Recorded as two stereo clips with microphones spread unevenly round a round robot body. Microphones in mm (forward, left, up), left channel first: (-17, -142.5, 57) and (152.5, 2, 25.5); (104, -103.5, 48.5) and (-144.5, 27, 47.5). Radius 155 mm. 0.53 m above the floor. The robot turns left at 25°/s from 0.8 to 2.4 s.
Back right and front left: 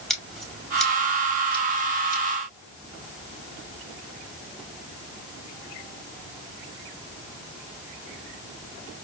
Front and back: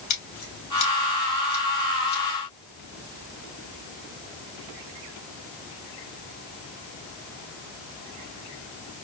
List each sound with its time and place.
0.1 s scissors: 50° right, 3 m; by 2.2 s 85° right, 3 m